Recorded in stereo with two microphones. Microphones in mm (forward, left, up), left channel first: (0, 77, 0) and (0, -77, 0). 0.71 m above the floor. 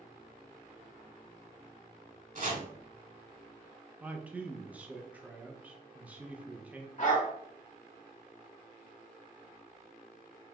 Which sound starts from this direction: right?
Chopping, at 2.4 s.